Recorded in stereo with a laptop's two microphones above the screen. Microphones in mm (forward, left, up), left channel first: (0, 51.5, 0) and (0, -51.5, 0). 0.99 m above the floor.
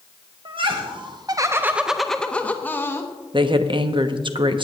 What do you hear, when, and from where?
0.5 s laughter: 55° right (ahead or behind), 0.9 m; by 3.1 s 25° left (ahead or behind), 1.3 m
3.3 s a woman speaking: 55° right (ahead or behind), 0.9 m